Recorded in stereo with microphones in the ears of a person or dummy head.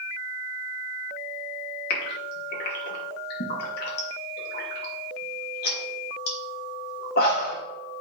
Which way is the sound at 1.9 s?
65° left (ahead or behind).